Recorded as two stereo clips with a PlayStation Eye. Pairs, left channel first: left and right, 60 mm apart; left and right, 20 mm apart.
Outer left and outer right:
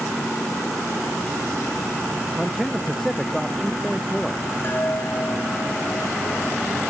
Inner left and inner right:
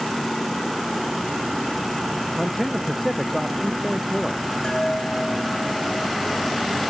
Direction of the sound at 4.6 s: 40° left (ahead or behind).